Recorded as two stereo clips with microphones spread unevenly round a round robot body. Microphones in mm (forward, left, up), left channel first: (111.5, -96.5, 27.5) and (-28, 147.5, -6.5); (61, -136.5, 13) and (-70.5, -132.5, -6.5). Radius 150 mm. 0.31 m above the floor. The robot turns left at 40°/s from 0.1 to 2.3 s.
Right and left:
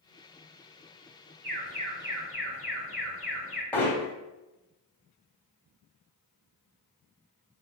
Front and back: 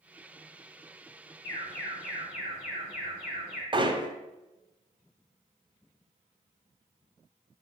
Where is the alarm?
70° left, 3.5 m; by 3.6 s 40° left, 3.5 m.